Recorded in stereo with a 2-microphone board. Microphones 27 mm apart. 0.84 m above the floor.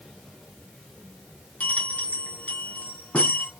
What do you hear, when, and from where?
1.6 s a bell: 65° left (ahead or behind), 1.8 m